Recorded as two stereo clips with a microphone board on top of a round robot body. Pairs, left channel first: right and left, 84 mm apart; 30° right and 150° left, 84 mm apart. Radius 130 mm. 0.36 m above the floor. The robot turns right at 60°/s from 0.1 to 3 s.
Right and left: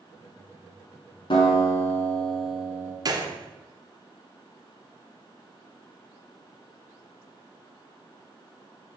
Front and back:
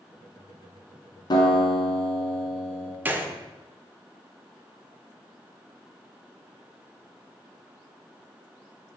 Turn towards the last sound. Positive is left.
turn(degrees=90)